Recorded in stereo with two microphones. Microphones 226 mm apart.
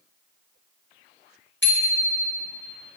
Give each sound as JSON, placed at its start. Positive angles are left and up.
{"t": 1.6, "sound": "a bicycle bell", "side_deg": 55, "distance_m": 4.5}